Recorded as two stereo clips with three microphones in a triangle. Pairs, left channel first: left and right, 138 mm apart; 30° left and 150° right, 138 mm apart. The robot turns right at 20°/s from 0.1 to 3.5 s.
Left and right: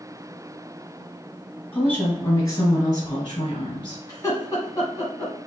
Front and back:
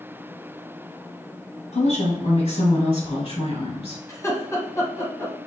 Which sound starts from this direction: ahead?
A woman speaking, at 1.7 s.